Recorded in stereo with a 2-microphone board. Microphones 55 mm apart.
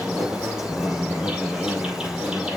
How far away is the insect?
About 5.5 m.